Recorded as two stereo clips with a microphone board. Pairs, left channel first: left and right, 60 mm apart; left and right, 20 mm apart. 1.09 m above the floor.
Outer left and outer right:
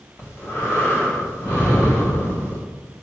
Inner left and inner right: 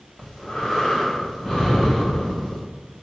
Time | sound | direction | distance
0.2 | breathing | 45° left (ahead or behind) | 1.9 m